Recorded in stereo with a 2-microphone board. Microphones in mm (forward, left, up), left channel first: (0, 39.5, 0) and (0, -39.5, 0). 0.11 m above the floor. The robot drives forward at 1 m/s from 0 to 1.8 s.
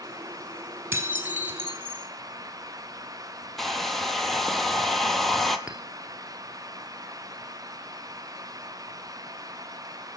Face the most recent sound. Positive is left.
turn(degrees=-10)  # may be behind; listen again after turning